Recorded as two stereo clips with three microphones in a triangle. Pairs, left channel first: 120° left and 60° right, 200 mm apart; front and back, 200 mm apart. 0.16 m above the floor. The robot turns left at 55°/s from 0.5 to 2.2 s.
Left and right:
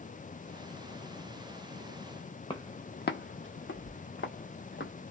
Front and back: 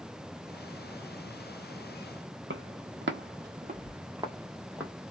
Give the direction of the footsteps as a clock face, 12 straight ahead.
6 o'clock.